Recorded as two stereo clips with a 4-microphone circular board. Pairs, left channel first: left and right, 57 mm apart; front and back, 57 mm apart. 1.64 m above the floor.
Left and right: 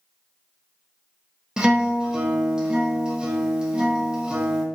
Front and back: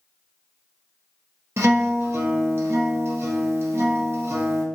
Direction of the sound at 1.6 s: 165° right.